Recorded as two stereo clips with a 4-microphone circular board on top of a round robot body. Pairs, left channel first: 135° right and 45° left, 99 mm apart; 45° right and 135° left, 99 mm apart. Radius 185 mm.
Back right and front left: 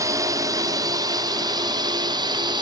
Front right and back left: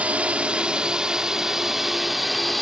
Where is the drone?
65° left; by 2.6 s 45° left.